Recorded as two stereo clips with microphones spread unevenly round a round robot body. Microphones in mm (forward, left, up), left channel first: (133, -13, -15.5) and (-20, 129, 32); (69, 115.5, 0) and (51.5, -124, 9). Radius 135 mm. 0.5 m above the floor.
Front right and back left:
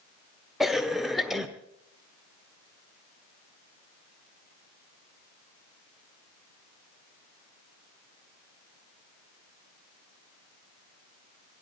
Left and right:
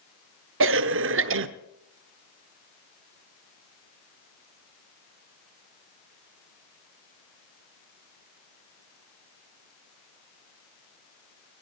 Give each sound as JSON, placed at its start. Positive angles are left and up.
{"t": 0.6, "sound": "a cough", "azimuth_deg": -125, "distance_m": 1.0}